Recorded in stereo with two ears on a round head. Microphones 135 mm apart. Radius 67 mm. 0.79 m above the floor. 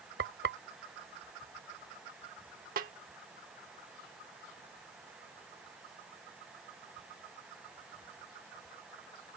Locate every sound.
0.2 s frying: 80° right
2.8 s a snare drum: 60° right (ahead or behind)